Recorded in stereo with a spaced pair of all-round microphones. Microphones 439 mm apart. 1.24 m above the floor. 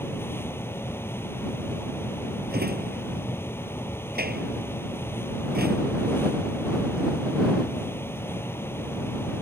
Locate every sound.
0.0 s a fan: 5° left (ahead or behind)
2.5 s a drawer: 20° right (ahead or behind)